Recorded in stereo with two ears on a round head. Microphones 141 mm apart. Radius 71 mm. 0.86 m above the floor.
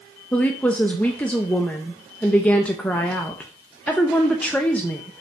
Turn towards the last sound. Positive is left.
turn(degrees=10)  # may be behind; listen again after turning